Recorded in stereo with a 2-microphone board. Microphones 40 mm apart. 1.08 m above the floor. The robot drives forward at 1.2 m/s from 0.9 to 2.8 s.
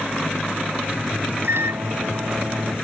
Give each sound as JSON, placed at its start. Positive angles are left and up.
{"t": 1.4, "sound": "a microwave", "side_deg": -85}